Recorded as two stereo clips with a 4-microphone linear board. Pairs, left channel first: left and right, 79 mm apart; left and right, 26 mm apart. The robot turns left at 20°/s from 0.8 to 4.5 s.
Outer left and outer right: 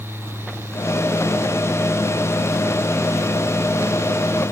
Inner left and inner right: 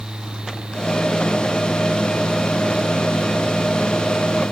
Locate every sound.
Only background noise.